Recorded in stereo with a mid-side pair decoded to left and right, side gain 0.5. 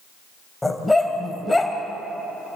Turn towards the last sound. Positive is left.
turn(degrees=10)